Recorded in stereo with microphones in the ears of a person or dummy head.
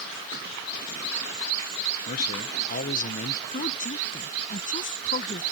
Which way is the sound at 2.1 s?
45° left (ahead or behind).